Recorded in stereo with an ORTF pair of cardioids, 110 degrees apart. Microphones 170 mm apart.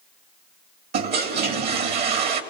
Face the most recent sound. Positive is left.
turn(degrees=-70)